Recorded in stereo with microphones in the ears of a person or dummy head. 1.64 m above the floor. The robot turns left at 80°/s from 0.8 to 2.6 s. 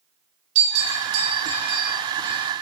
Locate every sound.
0.6 s a bell: 40° right (ahead or behind), 3 m; by 2.4 s 10° right (ahead or behind), 3 m